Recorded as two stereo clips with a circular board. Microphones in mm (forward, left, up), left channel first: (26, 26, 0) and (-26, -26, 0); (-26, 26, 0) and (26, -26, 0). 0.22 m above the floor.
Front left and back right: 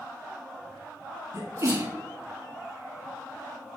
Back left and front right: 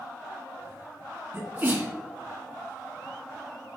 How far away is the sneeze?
About 2.0 m.